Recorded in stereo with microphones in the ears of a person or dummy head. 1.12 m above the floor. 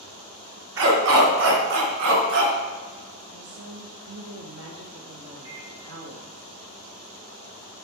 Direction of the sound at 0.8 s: 75° right (ahead or behind).